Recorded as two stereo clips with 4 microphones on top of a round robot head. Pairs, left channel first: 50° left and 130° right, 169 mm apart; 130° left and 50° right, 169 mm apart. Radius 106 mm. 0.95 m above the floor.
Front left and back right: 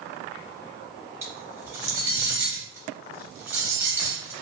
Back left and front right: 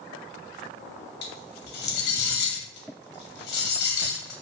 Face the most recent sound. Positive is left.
turn(degrees=155)